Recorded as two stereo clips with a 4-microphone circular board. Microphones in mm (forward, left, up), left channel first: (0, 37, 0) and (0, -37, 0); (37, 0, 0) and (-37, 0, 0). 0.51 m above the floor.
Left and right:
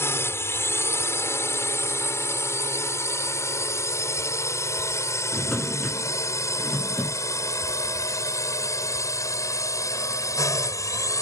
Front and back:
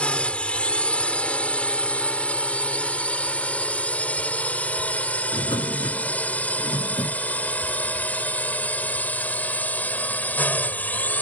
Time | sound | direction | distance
0.0 | a drone | 65° left | ?
5.3 | a drawer | 10° left | ?